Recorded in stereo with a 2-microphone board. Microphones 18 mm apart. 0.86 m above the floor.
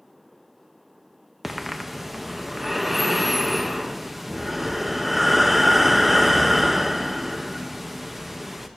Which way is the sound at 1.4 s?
10° right (ahead or behind).